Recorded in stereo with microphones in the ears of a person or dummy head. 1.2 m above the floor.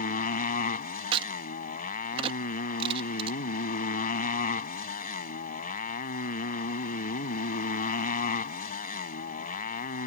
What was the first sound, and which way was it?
A motorcycle, 45° left (ahead or behind).